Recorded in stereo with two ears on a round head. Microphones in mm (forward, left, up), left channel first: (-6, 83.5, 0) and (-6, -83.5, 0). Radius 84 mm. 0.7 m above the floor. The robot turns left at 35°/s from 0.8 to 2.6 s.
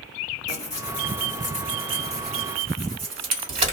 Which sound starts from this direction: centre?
Tearing paper, at 0.5 s.